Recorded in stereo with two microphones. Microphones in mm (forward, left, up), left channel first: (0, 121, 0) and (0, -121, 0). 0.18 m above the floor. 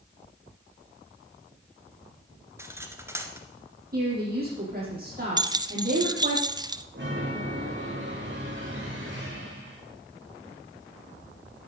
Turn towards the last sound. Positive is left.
turn(degrees=-50)  # may be behind; listen again after turning